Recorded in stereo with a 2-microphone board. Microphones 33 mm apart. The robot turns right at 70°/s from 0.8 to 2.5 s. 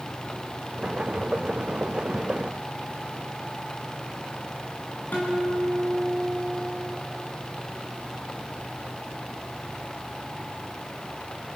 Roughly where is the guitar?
Left.